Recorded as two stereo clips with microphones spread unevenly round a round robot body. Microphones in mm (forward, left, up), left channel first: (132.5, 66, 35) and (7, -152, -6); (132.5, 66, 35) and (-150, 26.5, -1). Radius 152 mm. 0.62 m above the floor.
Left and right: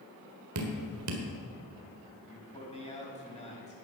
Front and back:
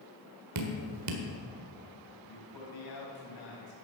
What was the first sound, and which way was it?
Dripping, 150° right.